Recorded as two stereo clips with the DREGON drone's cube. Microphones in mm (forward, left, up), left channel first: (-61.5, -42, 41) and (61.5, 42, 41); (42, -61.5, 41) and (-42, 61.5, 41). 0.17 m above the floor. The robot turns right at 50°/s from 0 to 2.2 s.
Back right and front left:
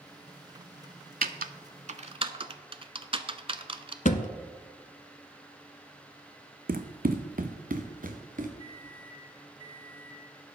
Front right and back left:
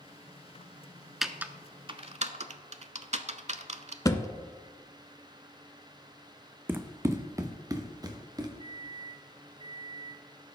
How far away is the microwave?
About 3.5 m.